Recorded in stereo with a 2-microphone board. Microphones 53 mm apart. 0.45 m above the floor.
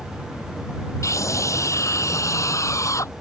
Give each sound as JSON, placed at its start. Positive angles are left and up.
{"t": 1.0, "sound": "a scream", "side_deg": 80}